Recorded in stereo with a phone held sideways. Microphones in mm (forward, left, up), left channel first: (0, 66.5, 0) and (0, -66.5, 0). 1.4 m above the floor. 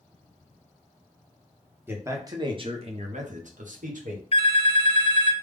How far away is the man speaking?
About 1.0 m.